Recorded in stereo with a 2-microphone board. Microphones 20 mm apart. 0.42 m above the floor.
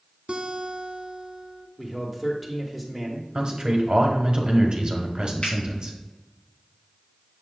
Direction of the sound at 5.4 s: 60° left (ahead or behind).